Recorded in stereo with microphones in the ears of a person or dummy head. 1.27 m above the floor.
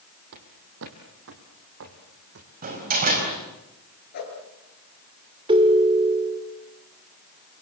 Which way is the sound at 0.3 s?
60° right (ahead or behind).